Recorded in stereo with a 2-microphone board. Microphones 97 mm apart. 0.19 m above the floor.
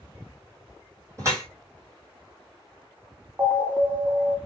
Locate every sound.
1.2 s dripping: 30° right (ahead or behind), 1.9 m
3.4 s an alarm: 20° right (ahead or behind), 1.1 m